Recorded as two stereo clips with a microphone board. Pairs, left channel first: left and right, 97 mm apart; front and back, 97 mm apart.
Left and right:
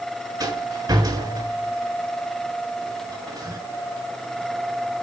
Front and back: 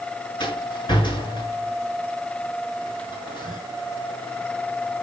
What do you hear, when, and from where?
0.4 s a rattle: 40° right, 6 m